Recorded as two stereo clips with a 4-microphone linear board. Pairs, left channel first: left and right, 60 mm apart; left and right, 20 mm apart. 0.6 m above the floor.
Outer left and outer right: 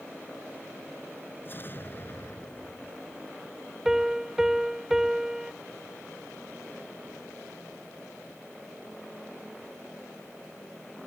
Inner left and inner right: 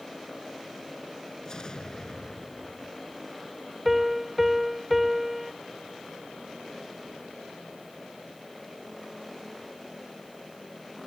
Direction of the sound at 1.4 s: 35° left (ahead or behind).